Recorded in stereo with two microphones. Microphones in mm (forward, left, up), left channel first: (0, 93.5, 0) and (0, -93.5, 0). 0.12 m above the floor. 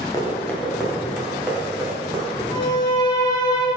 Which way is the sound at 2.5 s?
25° left (ahead or behind).